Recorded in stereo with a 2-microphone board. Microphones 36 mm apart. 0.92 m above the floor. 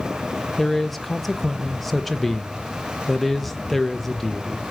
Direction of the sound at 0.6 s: 5° left (ahead or behind).